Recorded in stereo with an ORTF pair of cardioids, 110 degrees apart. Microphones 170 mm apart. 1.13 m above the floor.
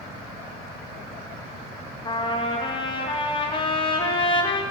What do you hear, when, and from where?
2.0 s a trumpet: 30° left, 0.9 m